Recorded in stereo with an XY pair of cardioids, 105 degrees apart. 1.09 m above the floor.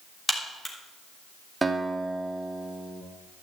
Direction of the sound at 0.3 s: 10° left.